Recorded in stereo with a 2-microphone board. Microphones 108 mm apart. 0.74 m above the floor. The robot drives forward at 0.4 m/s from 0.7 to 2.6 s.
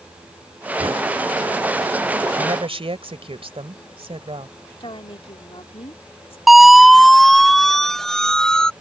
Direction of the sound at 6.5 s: Centre (ahead or behind).